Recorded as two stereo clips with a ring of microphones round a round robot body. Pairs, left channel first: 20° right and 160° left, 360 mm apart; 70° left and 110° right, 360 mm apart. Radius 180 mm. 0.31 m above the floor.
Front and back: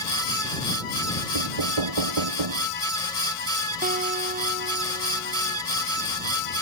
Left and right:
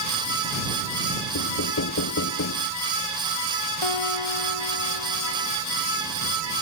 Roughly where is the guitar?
Left.